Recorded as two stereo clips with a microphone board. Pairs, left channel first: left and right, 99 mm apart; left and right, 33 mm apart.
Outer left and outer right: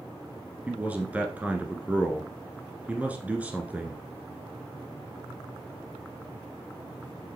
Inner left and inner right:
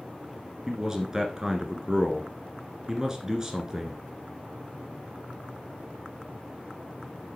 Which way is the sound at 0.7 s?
15° right (ahead or behind).